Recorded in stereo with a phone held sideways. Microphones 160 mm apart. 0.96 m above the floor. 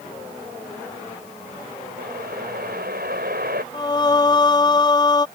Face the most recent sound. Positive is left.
turn(degrees=25)  # may be behind; listen again after turning